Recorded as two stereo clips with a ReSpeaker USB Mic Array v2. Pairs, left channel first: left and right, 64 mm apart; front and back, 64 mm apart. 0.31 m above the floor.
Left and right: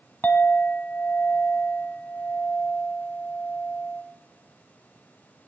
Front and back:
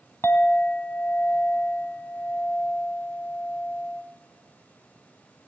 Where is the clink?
35° left, 1.1 m.